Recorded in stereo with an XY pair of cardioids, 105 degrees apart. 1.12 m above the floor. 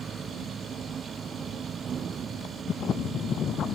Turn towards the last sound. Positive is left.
turn(degrees=-50)